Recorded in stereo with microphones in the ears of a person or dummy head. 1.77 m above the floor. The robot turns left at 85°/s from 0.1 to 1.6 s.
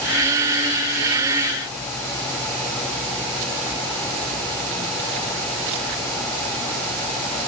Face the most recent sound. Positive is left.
No sound to turn to.